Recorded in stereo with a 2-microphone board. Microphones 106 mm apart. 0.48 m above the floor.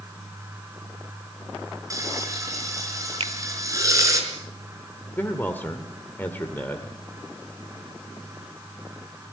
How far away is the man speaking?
About 1.7 m.